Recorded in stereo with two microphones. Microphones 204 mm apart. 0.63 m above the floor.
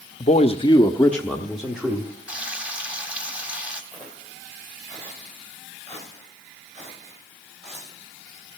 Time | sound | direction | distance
0.2 | a man speaking | 35° left (ahead or behind) | 0.7 m
2.3 | frying | 5° right (ahead or behind) | 1.6 m
3.9 | footsteps | 30° right (ahead or behind) | 5 m